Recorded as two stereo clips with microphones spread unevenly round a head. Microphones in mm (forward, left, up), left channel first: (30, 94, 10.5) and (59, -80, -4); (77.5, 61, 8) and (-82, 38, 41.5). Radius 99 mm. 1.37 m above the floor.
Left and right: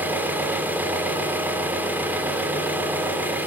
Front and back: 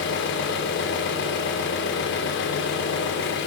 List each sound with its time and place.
0.0 s an engine running: straight ahead, 2.5 m